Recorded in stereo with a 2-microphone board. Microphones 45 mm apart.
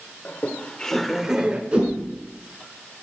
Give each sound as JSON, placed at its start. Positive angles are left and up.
{"t": 0.2, "sound": "laughter", "side_deg": 40, "distance_m": 1.4}
{"t": 1.7, "sound": "a whoosh", "side_deg": -25, "distance_m": 4.5}